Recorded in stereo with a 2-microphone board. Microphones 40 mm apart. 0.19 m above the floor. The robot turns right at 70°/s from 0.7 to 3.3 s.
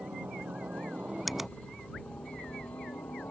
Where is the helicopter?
65° right; by 3.3 s 115° left.